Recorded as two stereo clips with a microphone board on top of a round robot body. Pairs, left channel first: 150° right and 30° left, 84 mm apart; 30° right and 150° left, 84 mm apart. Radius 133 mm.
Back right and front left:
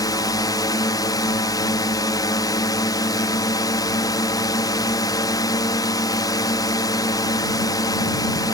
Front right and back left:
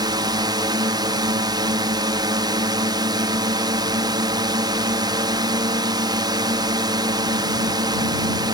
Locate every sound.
0.0 s a drone: 175° left